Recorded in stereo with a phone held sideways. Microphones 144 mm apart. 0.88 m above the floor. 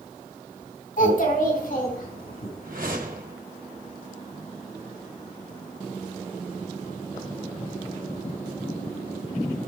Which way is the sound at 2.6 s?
65° right (ahead or behind).